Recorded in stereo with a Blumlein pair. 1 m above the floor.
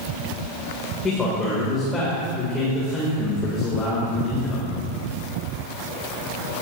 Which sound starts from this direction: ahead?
A man speaking, at 1.0 s.